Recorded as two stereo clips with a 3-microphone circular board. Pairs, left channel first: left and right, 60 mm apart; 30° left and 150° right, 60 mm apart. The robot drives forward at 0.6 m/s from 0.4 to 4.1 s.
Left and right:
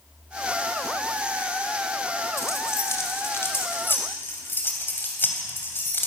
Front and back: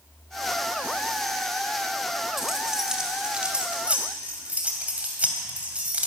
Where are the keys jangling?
125° left, 2 m; by 6.1 s 140° left, 3 m.